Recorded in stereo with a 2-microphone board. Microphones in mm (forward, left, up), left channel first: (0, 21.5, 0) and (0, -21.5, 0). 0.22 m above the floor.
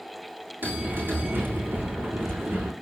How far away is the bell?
About 7.5 m.